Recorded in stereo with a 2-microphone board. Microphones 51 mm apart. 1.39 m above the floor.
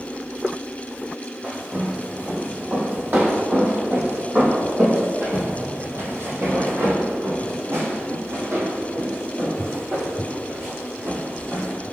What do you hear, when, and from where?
1.4 s footsteps: 25° right (ahead or behind), 3 m; by 11.8 s 60° right (ahead or behind), 5 m